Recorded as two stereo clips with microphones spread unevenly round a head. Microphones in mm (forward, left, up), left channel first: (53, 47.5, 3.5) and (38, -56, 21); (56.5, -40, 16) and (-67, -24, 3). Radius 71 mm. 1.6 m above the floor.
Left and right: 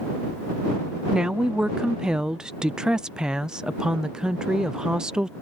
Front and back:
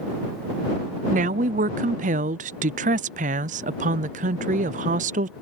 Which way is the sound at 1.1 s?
175° left.